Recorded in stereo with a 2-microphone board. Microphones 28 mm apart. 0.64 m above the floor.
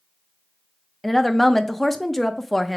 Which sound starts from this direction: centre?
A woman speaking, at 1.0 s.